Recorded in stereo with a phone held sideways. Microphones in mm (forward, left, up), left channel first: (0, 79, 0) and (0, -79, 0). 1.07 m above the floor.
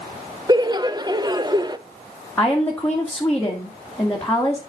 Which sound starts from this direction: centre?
A woman speaking, at 2.4 s.